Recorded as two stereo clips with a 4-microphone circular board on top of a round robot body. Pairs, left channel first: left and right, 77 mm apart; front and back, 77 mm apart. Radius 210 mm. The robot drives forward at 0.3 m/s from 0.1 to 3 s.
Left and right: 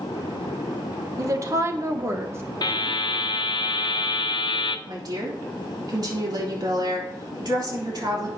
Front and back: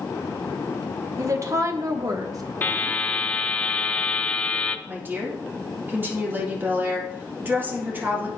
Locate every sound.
1.2 s a woman speaking: 135° right, 1.3 m; by 2.5 s 145° right, 1.5 m
2.6 s a buzzer: 65° left, 0.7 m; by 4.8 s 75° left, 0.6 m
4.9 s a woman speaking: 120° right, 3 m